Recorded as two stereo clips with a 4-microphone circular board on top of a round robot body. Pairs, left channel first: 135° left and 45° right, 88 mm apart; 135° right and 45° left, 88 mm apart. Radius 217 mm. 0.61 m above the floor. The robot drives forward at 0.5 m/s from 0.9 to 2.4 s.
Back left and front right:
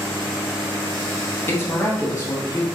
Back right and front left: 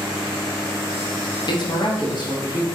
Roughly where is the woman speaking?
Behind.